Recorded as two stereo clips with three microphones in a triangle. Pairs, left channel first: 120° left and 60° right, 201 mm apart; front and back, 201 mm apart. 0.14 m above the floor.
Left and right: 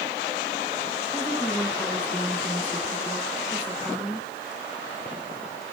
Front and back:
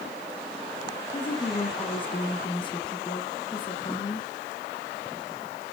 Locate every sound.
1.1 s a woman speaking: 15° left, 1.7 m